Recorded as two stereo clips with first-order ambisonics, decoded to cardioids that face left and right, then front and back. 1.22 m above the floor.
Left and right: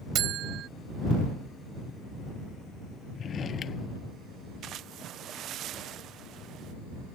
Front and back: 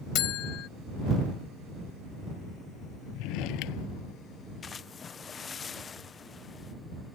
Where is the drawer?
25° left.